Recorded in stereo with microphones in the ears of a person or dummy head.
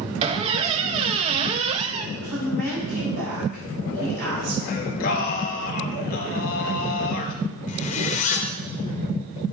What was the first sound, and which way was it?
A squeak, 35° right (ahead or behind).